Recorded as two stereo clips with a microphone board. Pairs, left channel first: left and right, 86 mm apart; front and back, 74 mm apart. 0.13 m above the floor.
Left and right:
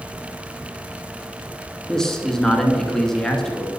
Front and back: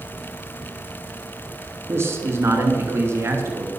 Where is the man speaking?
170° left, 1.3 m.